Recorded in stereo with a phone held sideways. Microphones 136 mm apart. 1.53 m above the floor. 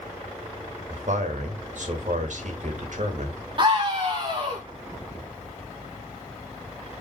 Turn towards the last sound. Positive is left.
turn(degrees=-35)  # may be behind; listen again after turning